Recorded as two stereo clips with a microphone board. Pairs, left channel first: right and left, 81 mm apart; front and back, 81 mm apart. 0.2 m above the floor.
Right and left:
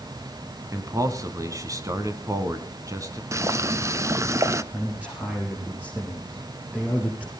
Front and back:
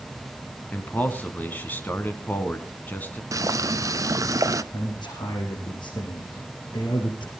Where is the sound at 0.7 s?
60° left, 1.9 m.